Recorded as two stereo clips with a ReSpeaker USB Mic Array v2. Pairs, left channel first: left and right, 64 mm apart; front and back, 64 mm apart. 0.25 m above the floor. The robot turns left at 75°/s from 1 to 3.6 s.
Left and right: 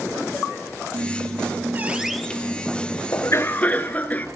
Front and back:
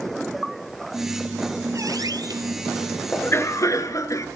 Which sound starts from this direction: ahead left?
A cough, at 3.1 s.